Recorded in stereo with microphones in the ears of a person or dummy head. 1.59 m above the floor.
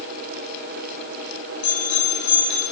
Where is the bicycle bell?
70° left (ahead or behind), 9.5 m.